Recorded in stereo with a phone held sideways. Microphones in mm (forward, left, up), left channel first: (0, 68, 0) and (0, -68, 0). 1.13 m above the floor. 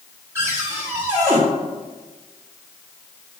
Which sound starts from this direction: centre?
A cupboard door, at 0.3 s.